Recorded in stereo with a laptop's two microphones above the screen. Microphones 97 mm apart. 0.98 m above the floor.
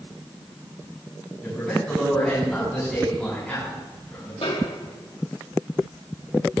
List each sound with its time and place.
1.4 s a man speaking: 10° left (ahead or behind), 7 m
4.4 s a snare drum: 75° left (ahead or behind), 2 m